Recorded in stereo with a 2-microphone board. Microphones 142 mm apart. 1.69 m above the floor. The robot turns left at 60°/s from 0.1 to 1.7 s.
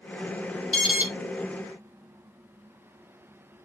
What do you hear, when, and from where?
0.7 s an alarm: 10° left (ahead or behind), 1.5 m; by 1.1 s 10° right (ahead or behind), 1.5 m